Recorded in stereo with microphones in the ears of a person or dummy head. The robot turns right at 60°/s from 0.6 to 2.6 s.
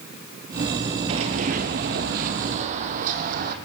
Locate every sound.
1.1 s running footsteps: 20° right (ahead or behind), 1.6 m; by 3.5 s 50° right (ahead or behind), 3.5 m